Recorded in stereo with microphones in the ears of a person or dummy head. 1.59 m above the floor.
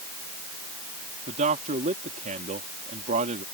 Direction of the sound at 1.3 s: 40° right (ahead or behind).